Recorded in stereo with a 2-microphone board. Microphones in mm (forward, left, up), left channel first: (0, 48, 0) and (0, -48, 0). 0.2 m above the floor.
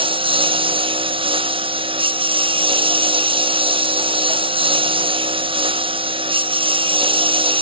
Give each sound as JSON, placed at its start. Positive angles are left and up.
{"t": 0.0, "sound": "a lawn mower", "side_deg": -65}